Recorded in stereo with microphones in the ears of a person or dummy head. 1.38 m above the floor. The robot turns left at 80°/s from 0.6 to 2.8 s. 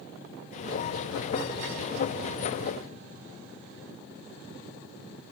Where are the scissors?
No scissors in this recording.